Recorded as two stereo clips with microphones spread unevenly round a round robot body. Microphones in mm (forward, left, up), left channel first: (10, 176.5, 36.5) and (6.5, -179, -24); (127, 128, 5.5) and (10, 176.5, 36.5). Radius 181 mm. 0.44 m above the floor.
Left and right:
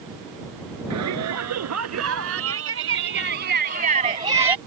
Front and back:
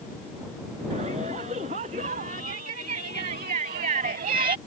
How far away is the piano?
I don't hear a piano.